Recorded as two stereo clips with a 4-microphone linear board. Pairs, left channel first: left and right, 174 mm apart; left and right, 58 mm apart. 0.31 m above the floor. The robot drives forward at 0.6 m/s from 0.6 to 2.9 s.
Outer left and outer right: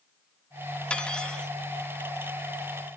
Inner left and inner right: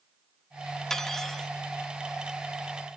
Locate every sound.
0.9 s cutlery clinking: 5° left (ahead or behind), 0.6 m